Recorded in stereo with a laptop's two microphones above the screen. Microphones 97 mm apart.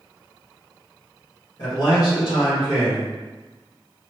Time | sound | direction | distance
1.6 | a man speaking | 50° left (ahead or behind) | 1.7 m